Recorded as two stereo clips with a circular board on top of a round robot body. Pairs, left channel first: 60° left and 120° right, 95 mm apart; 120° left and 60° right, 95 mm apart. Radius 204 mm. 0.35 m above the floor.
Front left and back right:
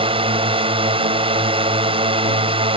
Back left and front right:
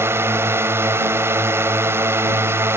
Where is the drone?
120° right.